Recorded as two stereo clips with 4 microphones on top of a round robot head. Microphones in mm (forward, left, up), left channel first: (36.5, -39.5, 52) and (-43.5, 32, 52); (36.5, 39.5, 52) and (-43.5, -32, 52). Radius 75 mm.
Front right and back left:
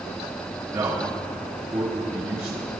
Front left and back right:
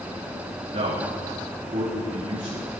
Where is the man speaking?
155° right, 4 m.